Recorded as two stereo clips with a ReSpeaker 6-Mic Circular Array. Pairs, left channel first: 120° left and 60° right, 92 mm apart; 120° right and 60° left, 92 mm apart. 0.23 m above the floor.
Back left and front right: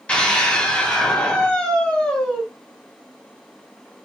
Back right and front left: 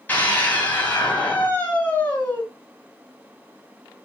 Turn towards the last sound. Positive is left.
turn(degrees=-175)